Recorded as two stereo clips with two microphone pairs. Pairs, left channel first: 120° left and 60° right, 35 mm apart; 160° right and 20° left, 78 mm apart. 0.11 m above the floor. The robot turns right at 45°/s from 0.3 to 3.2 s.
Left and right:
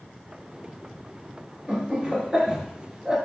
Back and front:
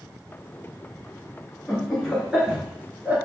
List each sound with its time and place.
1.7 s laughter: 80° right, 1.1 m; by 3.2 s 15° right, 1.1 m